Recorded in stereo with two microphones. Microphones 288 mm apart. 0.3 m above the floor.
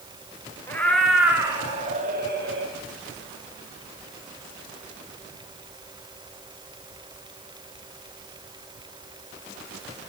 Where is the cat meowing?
10° left (ahead or behind), 2.0 m; by 2.7 s 50° right (ahead or behind), 1.9 m.